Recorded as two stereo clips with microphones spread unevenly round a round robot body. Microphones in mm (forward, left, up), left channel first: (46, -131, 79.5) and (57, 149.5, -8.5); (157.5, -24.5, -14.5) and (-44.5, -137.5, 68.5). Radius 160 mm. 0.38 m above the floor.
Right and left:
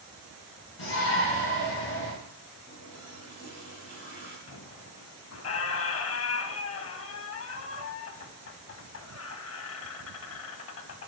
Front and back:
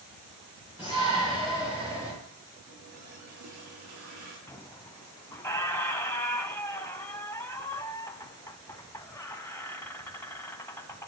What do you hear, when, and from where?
0.8 s a shout: 65° right, 5 m
2.7 s a running tap: 160° right, 6.5 m
4.5 s a squeak: 50° right, 1.0 m